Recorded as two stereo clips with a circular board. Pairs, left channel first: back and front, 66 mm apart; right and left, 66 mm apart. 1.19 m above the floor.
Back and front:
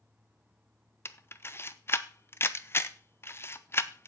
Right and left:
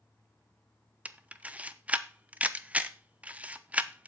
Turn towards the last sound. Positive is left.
turn(degrees=150)